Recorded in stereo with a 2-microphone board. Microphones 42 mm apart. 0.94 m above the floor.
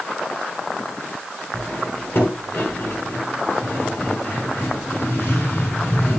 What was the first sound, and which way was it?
Cutlery clinking, 50° left (ahead or behind).